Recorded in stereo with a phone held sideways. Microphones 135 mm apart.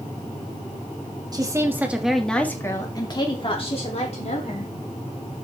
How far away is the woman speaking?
About 2 m.